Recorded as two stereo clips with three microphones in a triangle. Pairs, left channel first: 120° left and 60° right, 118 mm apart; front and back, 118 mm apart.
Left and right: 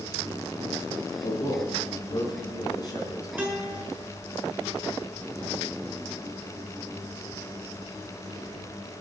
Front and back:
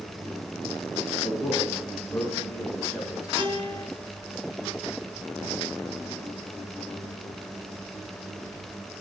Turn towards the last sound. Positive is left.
turn(degrees=-135)